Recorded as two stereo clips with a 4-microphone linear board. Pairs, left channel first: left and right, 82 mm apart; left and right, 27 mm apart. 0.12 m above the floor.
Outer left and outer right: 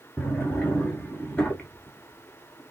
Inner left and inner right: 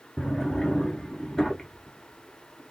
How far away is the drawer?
About 1.2 m.